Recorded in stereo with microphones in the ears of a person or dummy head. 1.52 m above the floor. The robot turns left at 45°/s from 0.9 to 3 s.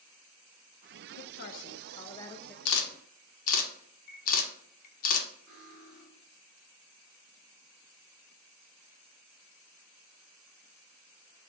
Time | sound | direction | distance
1.2 | a woman speaking | 65° left | 0.5 m
2.6 | a camera shutter | 65° left (ahead or behind) | 0.7 m
5.5 | cutlery clinking | centre (ahead or behind) | 1.9 m